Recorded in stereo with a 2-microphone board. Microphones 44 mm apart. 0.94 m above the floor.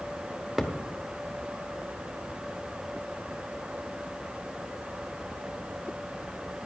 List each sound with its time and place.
0.6 s a thud: 5° right (ahead or behind), 1.2 m